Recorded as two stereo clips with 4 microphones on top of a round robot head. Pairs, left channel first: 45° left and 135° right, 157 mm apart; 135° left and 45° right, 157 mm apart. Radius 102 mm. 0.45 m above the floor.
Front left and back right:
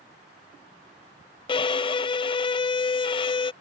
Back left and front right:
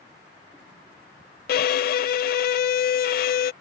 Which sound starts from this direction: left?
A violin, at 1.5 s.